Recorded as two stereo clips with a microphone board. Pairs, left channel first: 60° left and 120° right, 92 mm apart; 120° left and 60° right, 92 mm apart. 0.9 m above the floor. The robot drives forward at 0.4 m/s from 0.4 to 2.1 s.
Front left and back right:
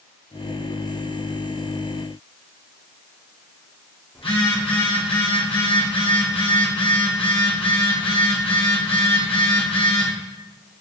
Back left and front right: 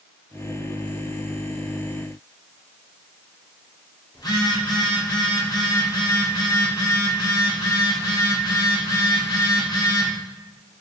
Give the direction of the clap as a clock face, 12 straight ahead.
I don't hear a clap.